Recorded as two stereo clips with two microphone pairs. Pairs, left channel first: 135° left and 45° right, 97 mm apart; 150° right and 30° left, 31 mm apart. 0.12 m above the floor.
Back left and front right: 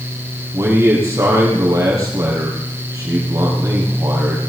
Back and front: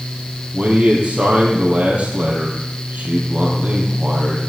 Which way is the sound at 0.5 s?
5° left.